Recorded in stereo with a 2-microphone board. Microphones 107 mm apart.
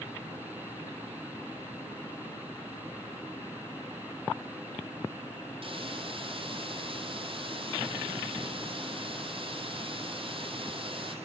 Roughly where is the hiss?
Right.